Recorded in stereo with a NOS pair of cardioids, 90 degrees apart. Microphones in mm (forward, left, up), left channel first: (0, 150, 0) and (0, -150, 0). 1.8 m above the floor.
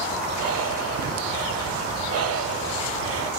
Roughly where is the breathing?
Ahead right.